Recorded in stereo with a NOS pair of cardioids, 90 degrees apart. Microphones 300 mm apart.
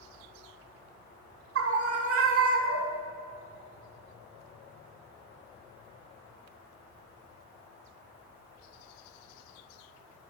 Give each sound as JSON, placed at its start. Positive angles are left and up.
{"t": 1.6, "sound": "a scream", "azimuth_deg": -50, "distance_m": 2.0}